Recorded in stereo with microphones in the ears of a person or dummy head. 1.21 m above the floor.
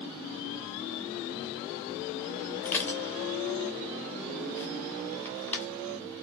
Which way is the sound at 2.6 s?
10° left (ahead or behind).